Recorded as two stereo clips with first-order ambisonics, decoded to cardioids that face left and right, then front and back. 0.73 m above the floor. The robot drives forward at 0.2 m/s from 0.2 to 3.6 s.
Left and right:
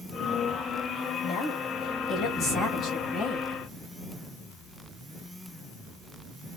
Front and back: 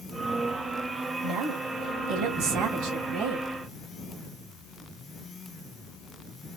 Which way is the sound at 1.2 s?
145° left.